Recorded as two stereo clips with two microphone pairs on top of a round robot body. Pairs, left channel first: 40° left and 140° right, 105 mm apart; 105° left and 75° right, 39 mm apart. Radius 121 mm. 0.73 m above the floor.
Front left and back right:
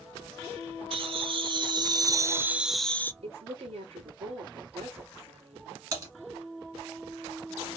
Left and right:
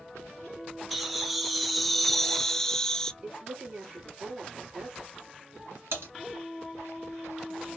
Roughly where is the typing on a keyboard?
Right.